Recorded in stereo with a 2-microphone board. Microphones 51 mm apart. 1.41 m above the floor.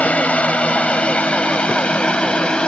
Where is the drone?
25° left (ahead or behind); by 2.7 s 20° left (ahead or behind).